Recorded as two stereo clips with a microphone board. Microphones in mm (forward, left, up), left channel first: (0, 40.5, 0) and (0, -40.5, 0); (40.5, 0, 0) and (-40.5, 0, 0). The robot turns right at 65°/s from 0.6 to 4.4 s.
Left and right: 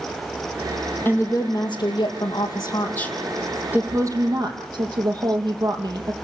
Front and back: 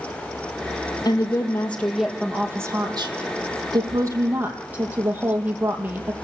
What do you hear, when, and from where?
1.1 s a woman speaking: 30° left, 4.5 m; by 6.1 s 115° right, 4.5 m